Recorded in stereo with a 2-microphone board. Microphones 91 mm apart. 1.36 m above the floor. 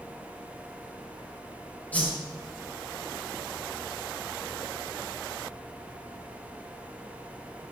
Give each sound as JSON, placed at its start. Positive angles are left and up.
{"t": 1.9, "sound": "a whoosh", "side_deg": 15, "distance_m": 5.5}